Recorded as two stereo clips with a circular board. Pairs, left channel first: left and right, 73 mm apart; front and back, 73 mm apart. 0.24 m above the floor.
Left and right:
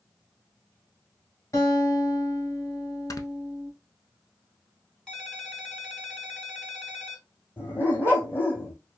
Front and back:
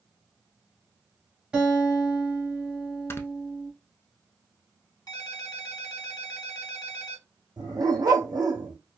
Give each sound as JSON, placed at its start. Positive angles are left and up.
{"t": 1.5, "sound": "a guitar", "azimuth_deg": 110, "distance_m": 1.4}
{"t": 3.1, "sound": "snoring", "azimuth_deg": 55, "distance_m": 0.5}
{"t": 5.1, "sound": "a ringtone", "azimuth_deg": 10, "distance_m": 1.1}
{"t": 7.6, "sound": "a dog barking", "azimuth_deg": 150, "distance_m": 1.9}